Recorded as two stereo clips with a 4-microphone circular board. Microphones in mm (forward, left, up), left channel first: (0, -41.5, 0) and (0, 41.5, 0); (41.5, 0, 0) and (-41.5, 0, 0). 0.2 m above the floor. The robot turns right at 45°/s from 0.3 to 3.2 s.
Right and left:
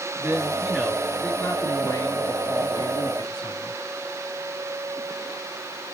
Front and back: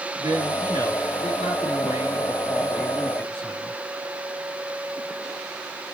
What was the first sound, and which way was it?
A man speaking, 150° left.